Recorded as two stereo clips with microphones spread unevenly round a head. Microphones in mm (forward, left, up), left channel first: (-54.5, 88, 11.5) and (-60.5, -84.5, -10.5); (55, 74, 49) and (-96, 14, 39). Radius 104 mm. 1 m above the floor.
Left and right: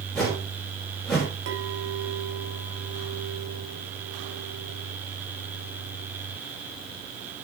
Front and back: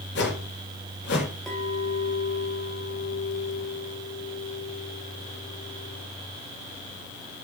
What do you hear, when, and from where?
0.1 s a whoosh: straight ahead, 5 m
1.5 s a clink: 65° right, 3 m